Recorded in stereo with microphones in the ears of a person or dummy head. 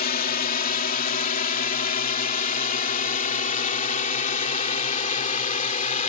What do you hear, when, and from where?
0.0 s a drone: 50° left (ahead or behind); by 6.1 s 45° left (ahead or behind)